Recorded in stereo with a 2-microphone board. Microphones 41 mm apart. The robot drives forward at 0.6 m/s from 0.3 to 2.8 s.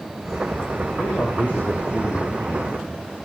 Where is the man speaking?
55° left (ahead or behind), 4.5 m; by 3.1 s 45° left (ahead or behind), 5.5 m.